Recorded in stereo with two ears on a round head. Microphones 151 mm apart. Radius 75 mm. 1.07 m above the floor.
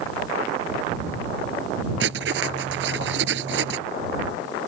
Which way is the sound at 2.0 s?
75° right (ahead or behind).